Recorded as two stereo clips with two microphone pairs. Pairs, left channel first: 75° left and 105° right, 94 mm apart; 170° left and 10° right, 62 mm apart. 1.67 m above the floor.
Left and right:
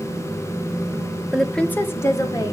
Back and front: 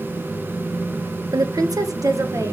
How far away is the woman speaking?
About 0.9 m.